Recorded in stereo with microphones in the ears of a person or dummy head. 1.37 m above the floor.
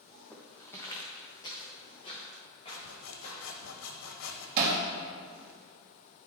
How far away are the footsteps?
About 3 m.